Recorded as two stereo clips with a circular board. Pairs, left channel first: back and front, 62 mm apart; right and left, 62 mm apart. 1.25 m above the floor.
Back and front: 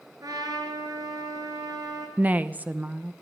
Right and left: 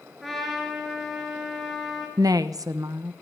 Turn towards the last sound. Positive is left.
turn(degrees=65)